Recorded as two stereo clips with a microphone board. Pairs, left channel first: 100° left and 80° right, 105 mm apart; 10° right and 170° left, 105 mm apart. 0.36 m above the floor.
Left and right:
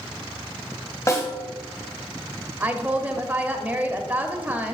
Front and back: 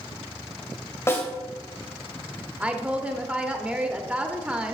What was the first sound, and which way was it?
A snare drum, 50° left.